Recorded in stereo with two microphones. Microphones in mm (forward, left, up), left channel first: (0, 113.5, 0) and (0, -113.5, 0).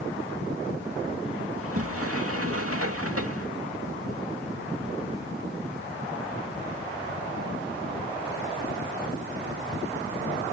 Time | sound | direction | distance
1.6 | a sliding door | 80° right | ?